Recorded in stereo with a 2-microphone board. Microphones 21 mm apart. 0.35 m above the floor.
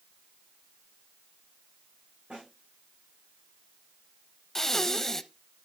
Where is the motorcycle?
I don't hear a motorcycle.